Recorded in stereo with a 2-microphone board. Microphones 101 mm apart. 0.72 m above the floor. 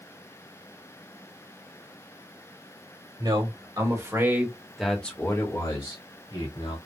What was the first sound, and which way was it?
A man speaking, 50° right (ahead or behind).